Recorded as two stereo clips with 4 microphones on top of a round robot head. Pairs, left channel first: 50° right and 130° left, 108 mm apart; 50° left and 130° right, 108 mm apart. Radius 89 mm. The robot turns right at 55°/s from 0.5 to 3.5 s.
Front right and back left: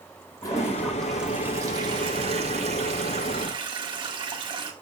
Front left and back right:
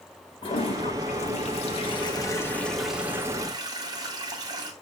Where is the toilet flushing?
10° left, 1.7 m; by 4.7 s 175° left, 1.7 m.